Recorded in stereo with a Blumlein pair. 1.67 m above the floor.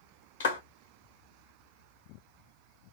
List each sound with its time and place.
0.4 s a clap: 65° left, 1.2 m